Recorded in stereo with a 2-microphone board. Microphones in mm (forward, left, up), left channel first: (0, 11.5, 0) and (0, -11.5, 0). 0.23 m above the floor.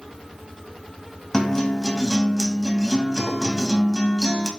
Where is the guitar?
15° left (ahead or behind), 1.7 m.